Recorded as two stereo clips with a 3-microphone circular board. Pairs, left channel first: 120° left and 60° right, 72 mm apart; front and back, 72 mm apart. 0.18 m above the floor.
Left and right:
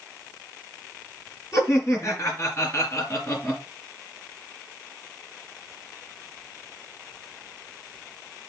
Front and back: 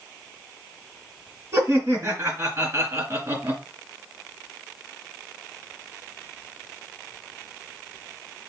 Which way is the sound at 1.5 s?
145° left.